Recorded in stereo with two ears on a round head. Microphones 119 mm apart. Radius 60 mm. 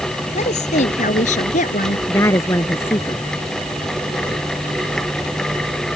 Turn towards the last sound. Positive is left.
turn(degrees=20)  # may be behind; listen again after turning